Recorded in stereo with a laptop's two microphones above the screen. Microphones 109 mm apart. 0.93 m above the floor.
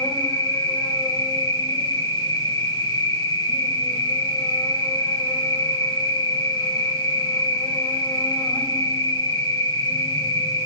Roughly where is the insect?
Left.